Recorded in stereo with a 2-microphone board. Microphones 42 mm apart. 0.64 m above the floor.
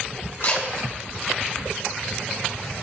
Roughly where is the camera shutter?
Left.